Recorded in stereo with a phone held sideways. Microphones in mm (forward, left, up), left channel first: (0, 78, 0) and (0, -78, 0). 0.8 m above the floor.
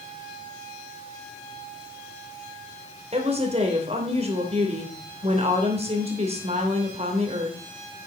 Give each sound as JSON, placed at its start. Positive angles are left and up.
{"t": 3.1, "sound": "a woman speaking", "side_deg": -45, "distance_m": 3.0}